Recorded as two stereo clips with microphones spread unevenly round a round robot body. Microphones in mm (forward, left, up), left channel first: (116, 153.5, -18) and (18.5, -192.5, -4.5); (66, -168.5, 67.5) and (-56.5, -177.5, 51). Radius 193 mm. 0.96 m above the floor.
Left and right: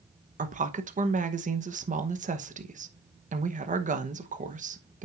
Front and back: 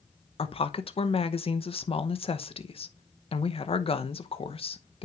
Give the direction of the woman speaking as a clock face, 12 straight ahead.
1 o'clock.